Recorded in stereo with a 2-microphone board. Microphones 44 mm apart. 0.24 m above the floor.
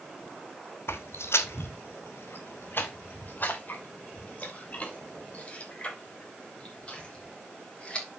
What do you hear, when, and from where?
0.9 s footsteps: 70° left (ahead or behind), 0.9 m; by 8.1 s 25° left (ahead or behind), 4 m